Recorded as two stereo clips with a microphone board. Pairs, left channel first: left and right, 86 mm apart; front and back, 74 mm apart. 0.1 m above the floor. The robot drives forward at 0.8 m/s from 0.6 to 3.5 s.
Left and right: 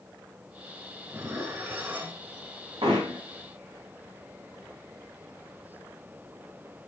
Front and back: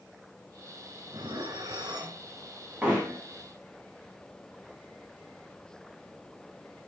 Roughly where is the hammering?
Right.